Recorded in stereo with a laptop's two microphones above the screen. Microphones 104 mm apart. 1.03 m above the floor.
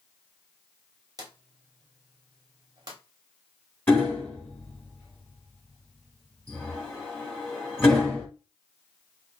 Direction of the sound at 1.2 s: 40° right (ahead or behind).